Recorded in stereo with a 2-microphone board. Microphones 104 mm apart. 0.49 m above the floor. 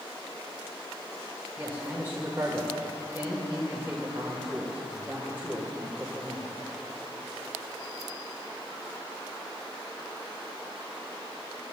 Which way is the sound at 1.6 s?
20° right (ahead or behind).